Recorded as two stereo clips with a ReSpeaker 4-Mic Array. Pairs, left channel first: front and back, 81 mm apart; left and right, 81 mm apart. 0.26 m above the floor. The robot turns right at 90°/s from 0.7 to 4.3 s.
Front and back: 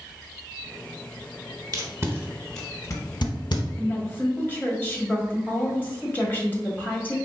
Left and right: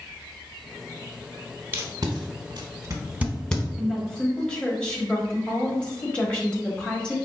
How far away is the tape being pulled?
About 0.8 m.